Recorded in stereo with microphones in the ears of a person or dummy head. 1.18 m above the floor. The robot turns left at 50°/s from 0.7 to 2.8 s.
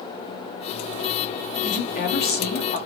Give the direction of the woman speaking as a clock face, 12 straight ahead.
8 o'clock.